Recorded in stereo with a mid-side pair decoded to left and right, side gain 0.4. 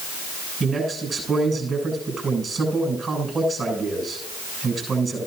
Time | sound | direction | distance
0.6 | a man speaking | 35° right | 7.5 m